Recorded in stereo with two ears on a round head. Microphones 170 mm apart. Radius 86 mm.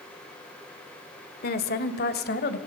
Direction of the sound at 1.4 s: 55° left (ahead or behind).